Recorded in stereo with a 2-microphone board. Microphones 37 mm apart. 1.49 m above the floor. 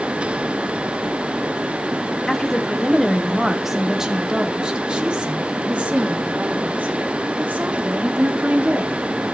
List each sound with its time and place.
2.3 s a woman speaking: 10° left (ahead or behind), 1.7 m; by 9.0 s 50° right (ahead or behind), 4 m